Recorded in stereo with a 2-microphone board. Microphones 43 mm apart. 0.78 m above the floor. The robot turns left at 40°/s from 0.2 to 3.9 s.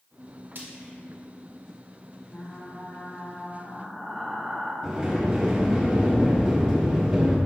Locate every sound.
0.6 s frying: 60° right (ahead or behind), 1.9 m; by 0.9 s 45° right (ahead or behind), 1.9 m
2.3 s frying: 60° left, 1.4 m; by 4.7 s 5° right, 1.4 m
4.8 s a sliding door: 15° right (ahead or behind), 2 m